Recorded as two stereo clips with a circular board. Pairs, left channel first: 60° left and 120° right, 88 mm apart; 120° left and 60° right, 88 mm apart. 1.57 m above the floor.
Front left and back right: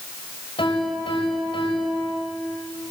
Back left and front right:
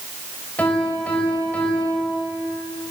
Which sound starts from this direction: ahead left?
A piano, at 0.6 s.